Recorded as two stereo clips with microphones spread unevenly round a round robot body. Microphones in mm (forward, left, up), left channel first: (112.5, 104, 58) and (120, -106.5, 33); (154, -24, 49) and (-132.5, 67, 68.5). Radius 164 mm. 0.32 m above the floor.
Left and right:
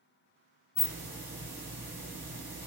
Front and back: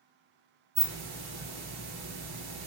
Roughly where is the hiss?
Behind.